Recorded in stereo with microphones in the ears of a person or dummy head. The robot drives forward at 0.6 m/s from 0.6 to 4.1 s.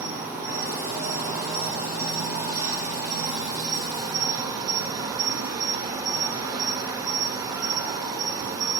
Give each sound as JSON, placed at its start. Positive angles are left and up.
{"t": 0.0, "sound": "an insect", "side_deg": -10, "distance_m": 5.0}